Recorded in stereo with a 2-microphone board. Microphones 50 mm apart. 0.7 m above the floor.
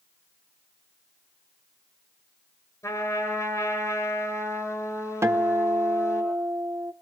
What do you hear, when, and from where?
2.8 s a trumpet: 85° left, 6 m
5.2 s a guitar: 70° right (ahead or behind), 1.4 m